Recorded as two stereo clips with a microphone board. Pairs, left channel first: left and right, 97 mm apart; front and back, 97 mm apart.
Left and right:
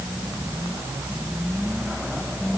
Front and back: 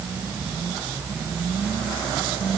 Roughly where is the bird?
I don't hear a bird.